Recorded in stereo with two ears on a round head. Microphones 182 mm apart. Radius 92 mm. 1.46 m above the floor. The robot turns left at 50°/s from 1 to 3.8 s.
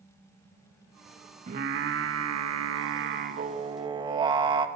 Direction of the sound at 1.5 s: 40° right.